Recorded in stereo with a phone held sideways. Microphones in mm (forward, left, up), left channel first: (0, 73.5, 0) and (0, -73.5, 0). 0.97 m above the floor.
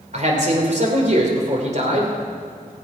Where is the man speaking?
50° right (ahead or behind), 2.5 m.